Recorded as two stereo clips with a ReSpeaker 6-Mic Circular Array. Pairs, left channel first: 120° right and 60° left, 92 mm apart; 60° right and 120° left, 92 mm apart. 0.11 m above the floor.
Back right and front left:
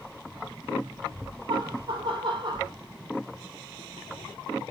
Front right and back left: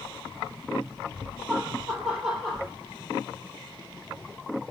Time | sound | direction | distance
1.5 | laughter | 35° left | 4 m